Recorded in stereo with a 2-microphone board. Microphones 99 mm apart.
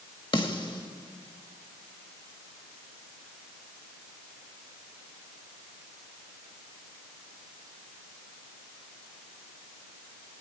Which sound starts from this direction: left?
A snare drum, at 0.3 s.